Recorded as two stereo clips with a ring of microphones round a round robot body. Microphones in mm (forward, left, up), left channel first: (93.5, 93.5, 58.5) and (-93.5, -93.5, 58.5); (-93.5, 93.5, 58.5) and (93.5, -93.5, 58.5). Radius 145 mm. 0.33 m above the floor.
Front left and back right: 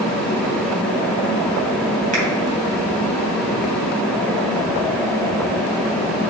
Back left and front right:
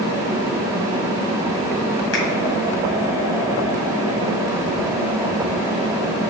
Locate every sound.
2.1 s a finger snap: 165° left, 2 m